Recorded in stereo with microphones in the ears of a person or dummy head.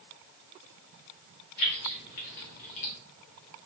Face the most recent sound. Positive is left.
turn(degrees=35)  # may be behind; listen again after turning